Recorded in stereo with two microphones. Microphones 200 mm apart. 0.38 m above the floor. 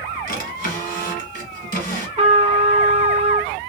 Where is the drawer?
50° left (ahead or behind), 1.4 m.